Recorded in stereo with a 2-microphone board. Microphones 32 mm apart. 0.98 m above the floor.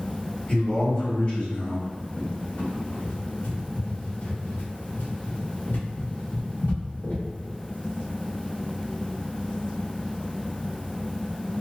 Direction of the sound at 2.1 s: 70° left (ahead or behind).